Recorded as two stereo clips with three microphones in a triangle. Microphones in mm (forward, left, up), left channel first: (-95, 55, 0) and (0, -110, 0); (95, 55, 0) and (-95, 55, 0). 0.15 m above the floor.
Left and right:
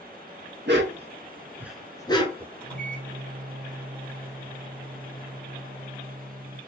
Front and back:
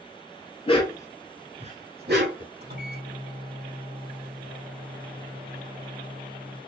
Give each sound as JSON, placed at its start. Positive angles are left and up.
{"t": 0.7, "sound": "a dog barking", "azimuth_deg": -55, "distance_m": 1.1}
{"t": 2.6, "sound": "a microwave", "azimuth_deg": -155, "distance_m": 2.5}